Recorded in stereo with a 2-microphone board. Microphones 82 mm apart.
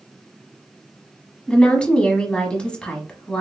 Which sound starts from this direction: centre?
A woman speaking, at 1.5 s.